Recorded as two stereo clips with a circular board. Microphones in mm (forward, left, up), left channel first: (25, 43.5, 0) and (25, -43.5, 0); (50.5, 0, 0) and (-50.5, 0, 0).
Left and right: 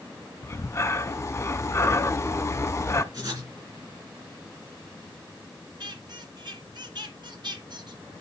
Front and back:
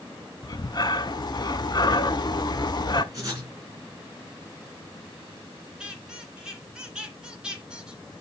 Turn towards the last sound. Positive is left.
turn(degrees=-100)